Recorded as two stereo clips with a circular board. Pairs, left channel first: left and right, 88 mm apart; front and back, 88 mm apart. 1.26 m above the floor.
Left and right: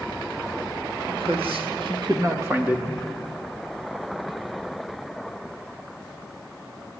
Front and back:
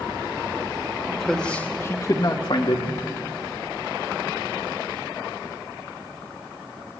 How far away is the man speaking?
About 2 m.